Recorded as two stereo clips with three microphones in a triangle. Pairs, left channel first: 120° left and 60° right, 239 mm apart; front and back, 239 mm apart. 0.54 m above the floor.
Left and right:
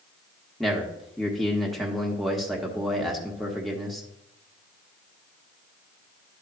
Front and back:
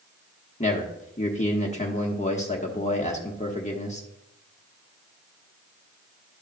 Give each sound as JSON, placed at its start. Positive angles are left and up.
{"t": 0.6, "sound": "a man speaking", "azimuth_deg": 30, "distance_m": 1.0}